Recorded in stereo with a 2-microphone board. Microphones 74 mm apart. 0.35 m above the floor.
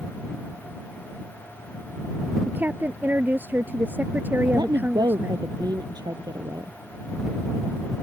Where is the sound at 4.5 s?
70° right (ahead or behind).